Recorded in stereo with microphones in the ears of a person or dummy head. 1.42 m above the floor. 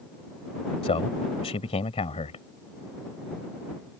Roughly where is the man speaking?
Left.